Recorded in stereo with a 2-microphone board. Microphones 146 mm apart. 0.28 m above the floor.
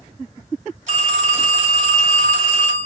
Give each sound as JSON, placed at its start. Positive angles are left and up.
{"t": 0.9, "sound": "a phone ringing", "side_deg": -60, "distance_m": 1.8}